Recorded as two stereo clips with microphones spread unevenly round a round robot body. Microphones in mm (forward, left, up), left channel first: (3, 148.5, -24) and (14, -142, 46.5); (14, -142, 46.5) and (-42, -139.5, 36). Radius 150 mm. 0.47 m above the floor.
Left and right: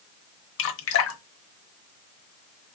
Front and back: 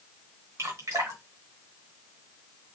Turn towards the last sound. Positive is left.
turn(degrees=135)